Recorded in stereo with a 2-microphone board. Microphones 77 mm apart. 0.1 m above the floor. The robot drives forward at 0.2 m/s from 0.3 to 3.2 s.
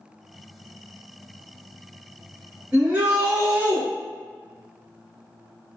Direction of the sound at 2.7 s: 20° right (ahead or behind).